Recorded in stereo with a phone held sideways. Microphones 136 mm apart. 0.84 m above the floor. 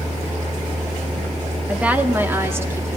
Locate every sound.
1.7 s a woman speaking: 10° right (ahead or behind), 1.6 m; by 3.0 s 20° right (ahead or behind), 2.5 m